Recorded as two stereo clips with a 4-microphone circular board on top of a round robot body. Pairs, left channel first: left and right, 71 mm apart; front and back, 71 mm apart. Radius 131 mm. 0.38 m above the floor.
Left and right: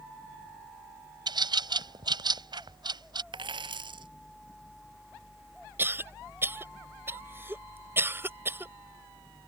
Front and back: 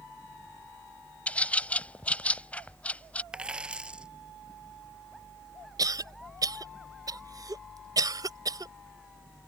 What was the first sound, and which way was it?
A bird, 70° right.